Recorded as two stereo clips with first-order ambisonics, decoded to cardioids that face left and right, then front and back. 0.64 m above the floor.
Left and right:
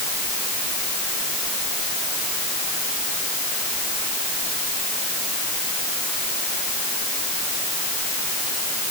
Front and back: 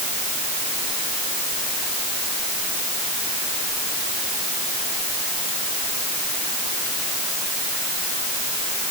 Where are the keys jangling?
I don't hear keys jangling.